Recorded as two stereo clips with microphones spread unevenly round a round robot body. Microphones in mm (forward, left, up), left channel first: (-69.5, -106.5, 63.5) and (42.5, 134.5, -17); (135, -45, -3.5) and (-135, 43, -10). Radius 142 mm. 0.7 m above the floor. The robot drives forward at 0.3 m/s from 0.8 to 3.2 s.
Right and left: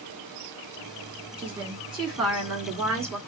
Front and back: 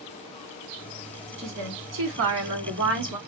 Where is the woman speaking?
135° left, 1.2 m; by 3.2 s 150° left, 1.5 m.